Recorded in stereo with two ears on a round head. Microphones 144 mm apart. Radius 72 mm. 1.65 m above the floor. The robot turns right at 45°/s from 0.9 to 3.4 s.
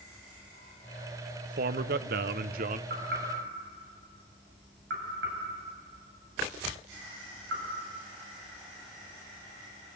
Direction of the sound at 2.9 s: 55° right (ahead or behind).